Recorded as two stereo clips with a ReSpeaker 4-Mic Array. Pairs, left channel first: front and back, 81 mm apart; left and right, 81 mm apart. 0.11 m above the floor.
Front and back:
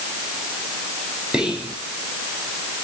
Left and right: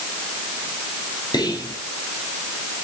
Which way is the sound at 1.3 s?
105° left.